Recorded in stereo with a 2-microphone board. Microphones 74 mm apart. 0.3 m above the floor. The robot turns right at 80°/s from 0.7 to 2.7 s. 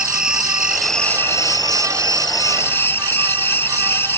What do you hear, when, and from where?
0.0 s an insect: 10° right; by 4.2 s 150° left